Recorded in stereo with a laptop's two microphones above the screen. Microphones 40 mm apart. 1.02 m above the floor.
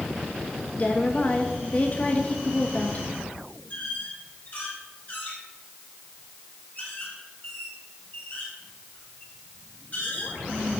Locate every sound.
0.8 s a woman speaking: 35° left (ahead or behind), 1.3 m
3.7 s a squeak: 45° left (ahead or behind), 4.5 m